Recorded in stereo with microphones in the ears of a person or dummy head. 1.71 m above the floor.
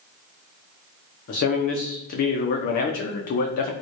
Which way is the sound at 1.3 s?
35° left (ahead or behind).